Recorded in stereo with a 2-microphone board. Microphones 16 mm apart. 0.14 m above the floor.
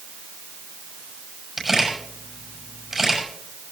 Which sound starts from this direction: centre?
A camera shutter, at 1.6 s.